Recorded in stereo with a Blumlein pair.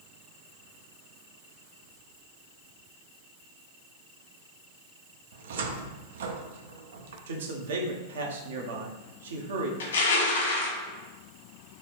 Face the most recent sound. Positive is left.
turn(degrees=60)